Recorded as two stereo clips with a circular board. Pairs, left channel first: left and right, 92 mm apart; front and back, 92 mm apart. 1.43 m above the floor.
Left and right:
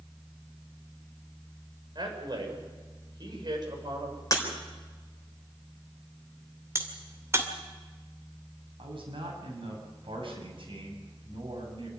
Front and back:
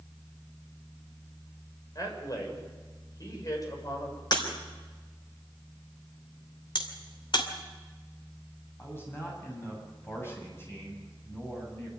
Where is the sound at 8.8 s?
65° right, 8 m.